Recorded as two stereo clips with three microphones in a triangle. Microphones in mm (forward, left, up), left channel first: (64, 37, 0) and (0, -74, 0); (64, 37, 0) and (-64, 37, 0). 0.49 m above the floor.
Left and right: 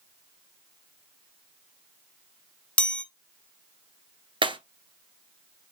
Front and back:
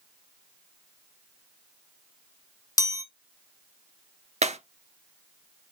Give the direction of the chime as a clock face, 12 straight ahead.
12 o'clock.